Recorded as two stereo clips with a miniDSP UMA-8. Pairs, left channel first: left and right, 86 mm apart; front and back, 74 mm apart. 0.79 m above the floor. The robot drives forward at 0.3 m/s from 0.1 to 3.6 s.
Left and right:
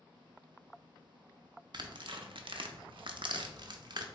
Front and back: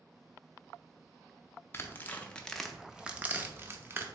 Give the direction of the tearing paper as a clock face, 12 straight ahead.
2 o'clock.